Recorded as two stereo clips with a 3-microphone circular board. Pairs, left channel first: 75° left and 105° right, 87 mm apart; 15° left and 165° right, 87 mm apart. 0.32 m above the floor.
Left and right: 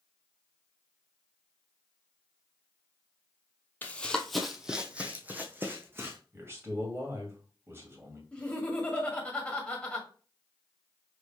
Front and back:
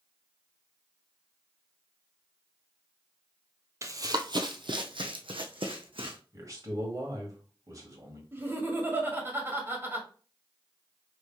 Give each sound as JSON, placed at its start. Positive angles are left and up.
{"t": 3.8, "sound": "running footsteps", "azimuth_deg": 140, "distance_m": 0.6}
{"t": 6.3, "sound": "a man speaking", "azimuth_deg": -150, "distance_m": 2.0}
{"t": 8.3, "sound": "laughter", "azimuth_deg": 145, "distance_m": 1.6}